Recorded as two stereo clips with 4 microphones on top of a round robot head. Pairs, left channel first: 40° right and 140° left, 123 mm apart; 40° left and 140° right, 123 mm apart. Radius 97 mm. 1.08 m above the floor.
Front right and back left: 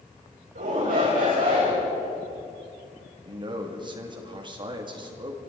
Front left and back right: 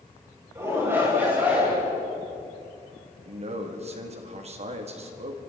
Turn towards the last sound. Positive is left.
turn(degrees=-170)